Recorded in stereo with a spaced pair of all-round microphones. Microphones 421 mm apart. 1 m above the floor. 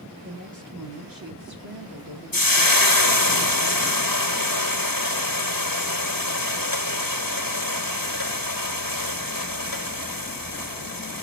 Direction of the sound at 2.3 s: 55° left (ahead or behind).